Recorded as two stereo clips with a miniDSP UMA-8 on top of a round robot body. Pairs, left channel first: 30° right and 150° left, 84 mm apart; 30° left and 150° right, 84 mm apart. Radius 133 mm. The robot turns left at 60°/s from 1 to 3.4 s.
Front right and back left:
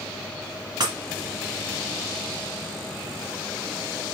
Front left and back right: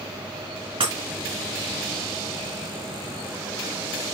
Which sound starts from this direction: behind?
Breaking glass, at 0.8 s.